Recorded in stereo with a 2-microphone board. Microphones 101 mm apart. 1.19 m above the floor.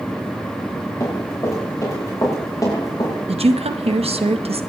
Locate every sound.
1.0 s running footsteps: 35° left (ahead or behind), 7.5 m; by 3.1 s 40° left (ahead or behind), 7 m
3.3 s a woman speaking: 80° right, 1.1 m